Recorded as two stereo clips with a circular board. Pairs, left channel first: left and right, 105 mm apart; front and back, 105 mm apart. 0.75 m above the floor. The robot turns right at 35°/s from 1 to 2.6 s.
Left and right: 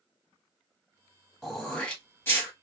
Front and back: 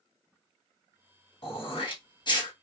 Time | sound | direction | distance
1.4 | throat clearing | 5° right | 1.2 m